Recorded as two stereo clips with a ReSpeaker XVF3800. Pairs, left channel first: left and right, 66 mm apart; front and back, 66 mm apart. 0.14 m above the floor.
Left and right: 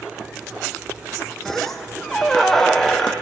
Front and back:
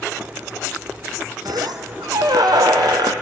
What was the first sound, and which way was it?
A squeak, 175° left.